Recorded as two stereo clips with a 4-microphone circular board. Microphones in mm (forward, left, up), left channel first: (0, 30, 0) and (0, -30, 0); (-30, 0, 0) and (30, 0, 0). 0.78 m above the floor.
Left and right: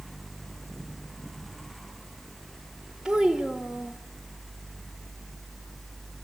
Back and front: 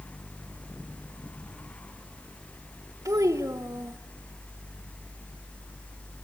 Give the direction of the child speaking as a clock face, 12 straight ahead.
12 o'clock.